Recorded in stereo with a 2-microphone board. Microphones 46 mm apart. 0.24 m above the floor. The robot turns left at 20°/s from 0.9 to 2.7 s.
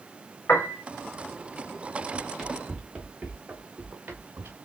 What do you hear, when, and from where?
0.5 s a piano: 50° left (ahead or behind), 2.5 m
2.1 s running footsteps: 10° right (ahead or behind), 1.6 m; by 4.6 s 45° right (ahead or behind), 1.7 m